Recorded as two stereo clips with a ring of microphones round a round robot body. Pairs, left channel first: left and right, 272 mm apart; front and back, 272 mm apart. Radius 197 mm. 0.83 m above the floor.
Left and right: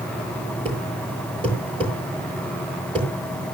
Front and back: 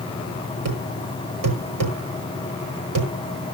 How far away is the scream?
I don't hear a scream.